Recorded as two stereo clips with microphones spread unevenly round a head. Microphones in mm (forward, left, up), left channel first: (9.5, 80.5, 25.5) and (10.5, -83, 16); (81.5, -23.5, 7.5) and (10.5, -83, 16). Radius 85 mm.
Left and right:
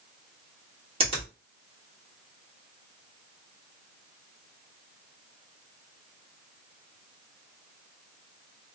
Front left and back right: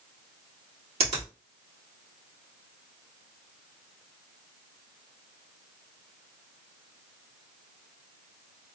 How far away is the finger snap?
About 1.7 m.